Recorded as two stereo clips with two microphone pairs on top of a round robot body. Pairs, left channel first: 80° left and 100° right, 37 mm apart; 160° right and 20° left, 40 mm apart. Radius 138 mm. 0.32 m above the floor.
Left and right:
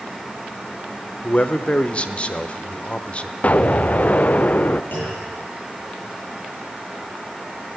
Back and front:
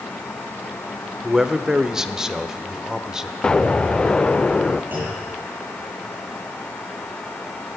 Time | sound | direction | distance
1.2 | a man speaking | 60° left | 1.1 m
3.4 | an explosion | 120° left | 0.5 m
4.9 | a clunk | 55° left | 9 m